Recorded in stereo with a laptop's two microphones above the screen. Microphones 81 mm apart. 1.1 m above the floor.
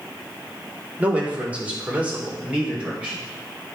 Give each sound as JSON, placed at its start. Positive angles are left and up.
{"t": 1.0, "sound": "a man speaking", "side_deg": -20, "distance_m": 3.0}